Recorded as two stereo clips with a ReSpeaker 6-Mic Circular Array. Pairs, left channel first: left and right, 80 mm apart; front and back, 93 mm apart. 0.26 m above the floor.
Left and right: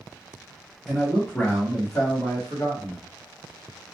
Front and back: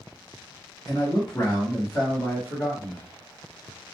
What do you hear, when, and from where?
0.9 s a man speaking: straight ahead, 1.0 m; by 3.0 s 80° left, 1.4 m